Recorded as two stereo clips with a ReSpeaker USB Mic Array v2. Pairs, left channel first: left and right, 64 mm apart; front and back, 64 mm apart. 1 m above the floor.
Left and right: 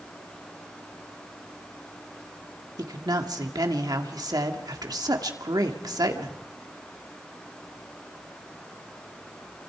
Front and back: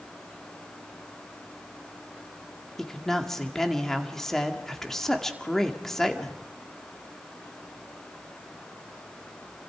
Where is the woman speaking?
85° right, 2 m.